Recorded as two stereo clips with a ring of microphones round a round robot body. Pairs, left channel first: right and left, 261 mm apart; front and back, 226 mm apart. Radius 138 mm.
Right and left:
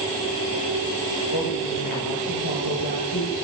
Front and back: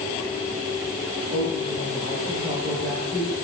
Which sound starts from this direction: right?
A woman speaking, at 1.3 s.